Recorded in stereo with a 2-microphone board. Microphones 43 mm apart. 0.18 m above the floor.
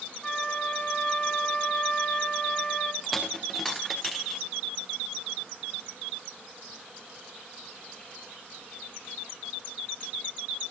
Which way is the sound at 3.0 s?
Centre (ahead or behind).